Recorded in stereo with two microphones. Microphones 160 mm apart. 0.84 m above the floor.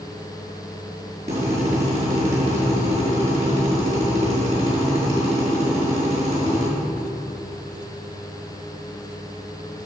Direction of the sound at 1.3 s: 45° right (ahead or behind).